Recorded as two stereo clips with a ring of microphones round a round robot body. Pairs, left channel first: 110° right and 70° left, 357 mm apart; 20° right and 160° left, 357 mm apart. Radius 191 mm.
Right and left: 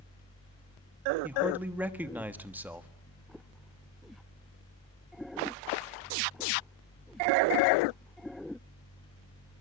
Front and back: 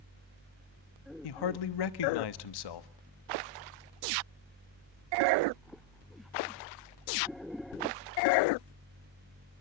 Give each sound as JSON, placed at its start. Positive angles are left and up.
{"t": 1.2, "sound": "a man speaking", "azimuth_deg": -20, "distance_m": 1.3}